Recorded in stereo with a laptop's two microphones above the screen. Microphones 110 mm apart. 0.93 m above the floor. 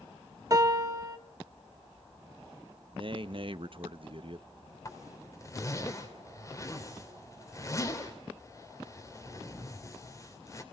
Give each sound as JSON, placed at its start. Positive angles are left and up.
{"t": 0.5, "sound": "a piano", "side_deg": -35, "distance_m": 0.8}
{"t": 2.9, "sound": "a man speaking", "side_deg": -50, "distance_m": 0.7}
{"t": 4.8, "sound": "a zipper", "side_deg": 30, "distance_m": 3.0}